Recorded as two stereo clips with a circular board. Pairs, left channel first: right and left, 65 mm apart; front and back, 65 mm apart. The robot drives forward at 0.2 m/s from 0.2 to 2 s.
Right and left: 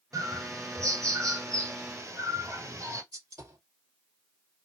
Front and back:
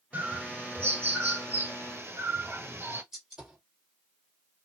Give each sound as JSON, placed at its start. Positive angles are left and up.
{"t": 0.1, "sound": "a bird", "azimuth_deg": 115, "distance_m": 1.7}
{"t": 3.1, "sound": "a gunshot", "azimuth_deg": 100, "distance_m": 2.5}